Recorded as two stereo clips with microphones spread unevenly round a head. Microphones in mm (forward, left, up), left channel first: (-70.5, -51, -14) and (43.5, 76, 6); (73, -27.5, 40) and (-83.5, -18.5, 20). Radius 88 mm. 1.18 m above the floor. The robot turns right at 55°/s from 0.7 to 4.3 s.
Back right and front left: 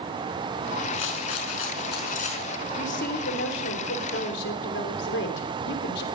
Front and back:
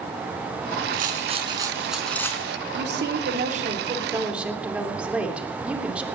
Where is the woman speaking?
175° left, 3 m; by 6.0 s 100° right, 3 m.